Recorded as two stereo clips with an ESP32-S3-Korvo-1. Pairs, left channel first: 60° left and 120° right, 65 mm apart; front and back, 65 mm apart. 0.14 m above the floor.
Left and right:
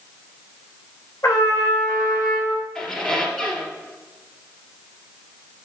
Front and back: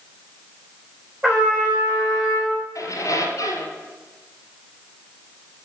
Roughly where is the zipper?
No zipper in this recording.